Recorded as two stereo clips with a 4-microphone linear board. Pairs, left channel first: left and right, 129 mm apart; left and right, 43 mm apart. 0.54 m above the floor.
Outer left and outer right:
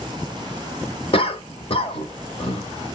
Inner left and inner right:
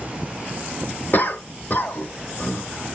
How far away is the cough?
About 1.0 m.